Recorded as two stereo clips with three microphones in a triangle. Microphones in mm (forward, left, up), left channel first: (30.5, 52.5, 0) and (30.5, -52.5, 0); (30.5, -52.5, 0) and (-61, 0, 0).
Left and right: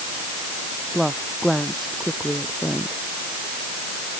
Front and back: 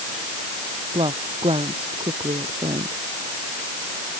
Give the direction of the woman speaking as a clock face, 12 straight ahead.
6 o'clock.